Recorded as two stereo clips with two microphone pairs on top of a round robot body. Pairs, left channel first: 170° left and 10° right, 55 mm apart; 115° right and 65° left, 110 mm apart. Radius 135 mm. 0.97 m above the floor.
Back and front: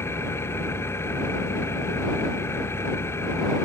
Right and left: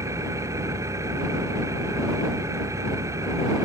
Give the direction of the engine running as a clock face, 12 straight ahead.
8 o'clock.